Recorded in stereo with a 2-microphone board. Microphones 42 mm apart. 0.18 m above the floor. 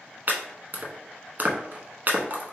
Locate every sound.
0.3 s chopping: 50° right (ahead or behind), 0.7 m